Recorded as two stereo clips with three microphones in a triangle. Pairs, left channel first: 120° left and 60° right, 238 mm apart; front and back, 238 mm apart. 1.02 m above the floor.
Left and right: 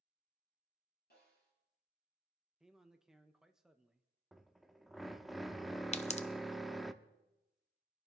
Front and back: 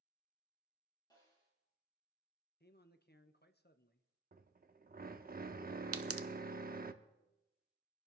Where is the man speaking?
30° left, 0.9 m.